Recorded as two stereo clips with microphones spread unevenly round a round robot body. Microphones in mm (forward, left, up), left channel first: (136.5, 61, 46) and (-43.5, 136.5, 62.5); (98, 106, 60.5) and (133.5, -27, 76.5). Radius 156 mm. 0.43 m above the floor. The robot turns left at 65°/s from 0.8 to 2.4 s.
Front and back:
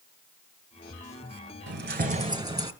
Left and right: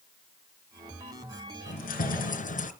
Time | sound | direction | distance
1.7 | keys jangling | 135° left | 2.0 m